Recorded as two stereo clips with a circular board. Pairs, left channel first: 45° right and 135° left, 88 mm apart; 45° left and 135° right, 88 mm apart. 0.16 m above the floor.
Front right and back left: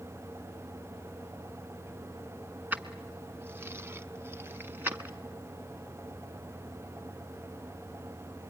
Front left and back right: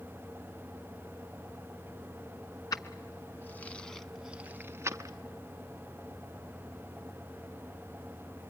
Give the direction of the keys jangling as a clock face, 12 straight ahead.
10 o'clock.